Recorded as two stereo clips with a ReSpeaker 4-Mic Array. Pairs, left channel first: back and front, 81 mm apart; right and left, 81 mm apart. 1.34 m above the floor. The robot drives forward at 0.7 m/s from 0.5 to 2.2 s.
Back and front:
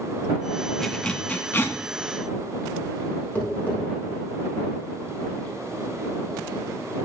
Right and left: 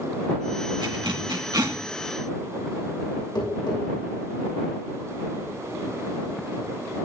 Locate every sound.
0.8 s a zipper: 95° left, 1.3 m; by 1.8 s 120° left, 1.5 m
3.4 s tapping: 110° right, 6.5 m